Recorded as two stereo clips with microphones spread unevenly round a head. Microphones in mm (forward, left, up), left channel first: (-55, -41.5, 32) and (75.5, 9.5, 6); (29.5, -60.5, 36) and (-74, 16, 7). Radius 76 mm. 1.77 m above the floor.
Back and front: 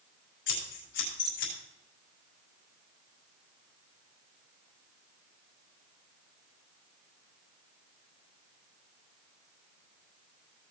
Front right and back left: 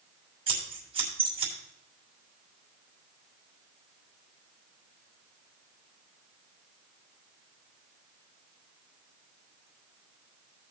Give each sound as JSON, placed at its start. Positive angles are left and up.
{"t": 0.5, "sound": "scissors", "azimuth_deg": -165, "distance_m": 6.5}